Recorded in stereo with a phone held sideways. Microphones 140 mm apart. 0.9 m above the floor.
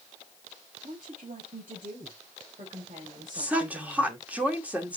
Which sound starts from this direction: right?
A woman speaking, at 0.8 s.